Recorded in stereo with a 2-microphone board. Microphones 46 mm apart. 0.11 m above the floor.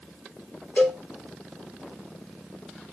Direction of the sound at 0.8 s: 35° left (ahead or behind).